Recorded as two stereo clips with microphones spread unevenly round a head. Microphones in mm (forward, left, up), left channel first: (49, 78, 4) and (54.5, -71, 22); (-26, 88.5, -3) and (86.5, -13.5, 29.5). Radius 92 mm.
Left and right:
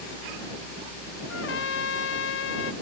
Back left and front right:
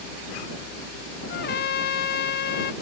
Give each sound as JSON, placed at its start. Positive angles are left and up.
{"t": 1.3, "sound": "a trumpet", "azimuth_deg": 120}